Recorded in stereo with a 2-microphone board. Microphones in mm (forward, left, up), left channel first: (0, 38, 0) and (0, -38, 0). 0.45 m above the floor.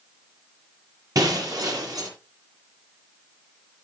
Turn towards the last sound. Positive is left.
turn(degrees=-50)  # may be behind; listen again after turning